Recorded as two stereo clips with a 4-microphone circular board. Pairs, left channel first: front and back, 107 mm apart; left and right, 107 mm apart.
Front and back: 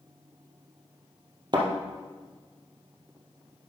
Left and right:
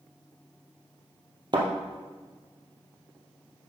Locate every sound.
1.5 s a thud: 135° right, 2 m